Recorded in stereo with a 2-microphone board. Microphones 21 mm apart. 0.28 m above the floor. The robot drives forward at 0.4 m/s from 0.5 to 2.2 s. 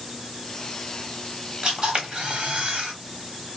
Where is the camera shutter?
45° right (ahead or behind), 0.9 m.